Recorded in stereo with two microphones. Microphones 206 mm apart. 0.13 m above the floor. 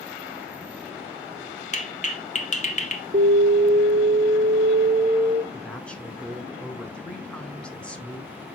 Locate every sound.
1.7 s a clap: 35° left (ahead or behind), 1.1 m
3.1 s an alarm: 45° right (ahead or behind), 1.5 m
5.5 s a woman speaking: 5° left (ahead or behind), 1.2 m